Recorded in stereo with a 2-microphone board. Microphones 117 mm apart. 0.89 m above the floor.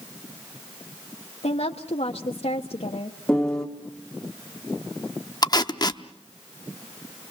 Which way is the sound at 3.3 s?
5° left (ahead or behind).